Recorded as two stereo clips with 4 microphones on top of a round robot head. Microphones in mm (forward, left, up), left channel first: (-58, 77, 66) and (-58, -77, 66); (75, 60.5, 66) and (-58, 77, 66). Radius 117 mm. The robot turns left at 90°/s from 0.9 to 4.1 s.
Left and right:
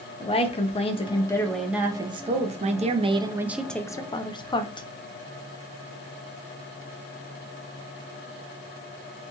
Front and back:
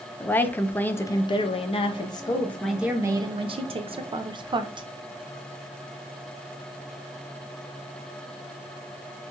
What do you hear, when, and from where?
0.2 s a woman speaking: 65° left, 0.5 m; by 4.9 s 135° left, 0.5 m